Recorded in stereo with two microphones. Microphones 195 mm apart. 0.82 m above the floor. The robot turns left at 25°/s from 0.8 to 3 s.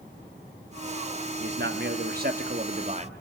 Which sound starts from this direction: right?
A man speaking, at 1.4 s.